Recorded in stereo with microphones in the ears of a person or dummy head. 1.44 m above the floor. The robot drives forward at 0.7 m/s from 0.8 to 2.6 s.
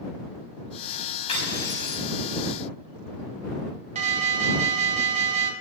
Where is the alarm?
40° right (ahead or behind), 1.7 m.